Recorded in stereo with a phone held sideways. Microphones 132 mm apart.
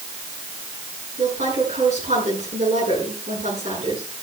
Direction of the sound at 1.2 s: 60° right (ahead or behind).